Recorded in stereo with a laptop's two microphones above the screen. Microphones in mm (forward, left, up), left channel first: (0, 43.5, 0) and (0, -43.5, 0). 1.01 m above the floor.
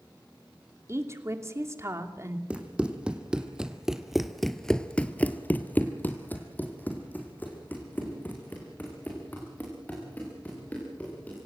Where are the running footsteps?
15° right (ahead or behind), 3 m; by 11.4 s 20° left (ahead or behind), 7.5 m.